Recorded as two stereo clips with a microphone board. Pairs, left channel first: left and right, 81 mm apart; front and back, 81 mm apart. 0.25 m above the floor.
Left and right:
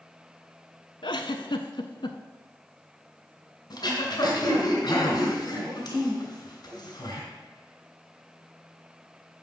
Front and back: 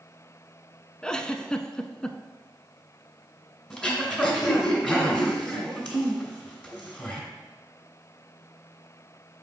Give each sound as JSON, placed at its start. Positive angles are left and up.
{"t": 1.0, "sound": "a giggle", "azimuth_deg": 80, "distance_m": 0.5}
{"t": 3.7, "sound": "throat clearing", "azimuth_deg": 80, "distance_m": 2.0}